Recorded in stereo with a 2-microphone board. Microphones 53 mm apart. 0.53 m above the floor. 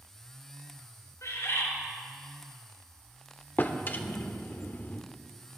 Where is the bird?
85° left, 3 m.